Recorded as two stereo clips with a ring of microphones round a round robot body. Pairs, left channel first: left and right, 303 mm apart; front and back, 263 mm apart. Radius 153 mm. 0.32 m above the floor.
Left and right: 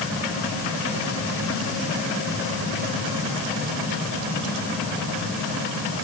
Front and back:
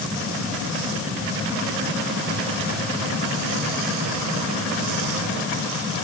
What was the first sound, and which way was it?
Only background noise.